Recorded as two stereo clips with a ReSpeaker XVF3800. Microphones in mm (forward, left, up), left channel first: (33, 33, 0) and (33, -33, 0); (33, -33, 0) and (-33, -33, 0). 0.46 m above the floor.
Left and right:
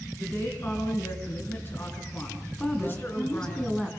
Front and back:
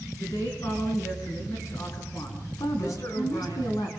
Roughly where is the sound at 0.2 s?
Ahead left.